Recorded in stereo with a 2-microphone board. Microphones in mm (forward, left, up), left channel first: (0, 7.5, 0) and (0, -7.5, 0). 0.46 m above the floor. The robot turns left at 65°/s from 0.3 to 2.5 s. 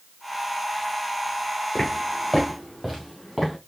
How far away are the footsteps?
About 2.5 m.